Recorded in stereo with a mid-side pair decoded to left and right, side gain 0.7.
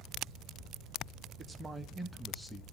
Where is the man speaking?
25° right, 1.4 m; by 2.6 s 10° left, 1.5 m.